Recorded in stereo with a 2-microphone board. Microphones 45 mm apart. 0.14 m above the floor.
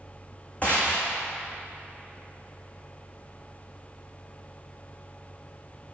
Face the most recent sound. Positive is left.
turn(degrees=30)  # may be behind; listen again after turning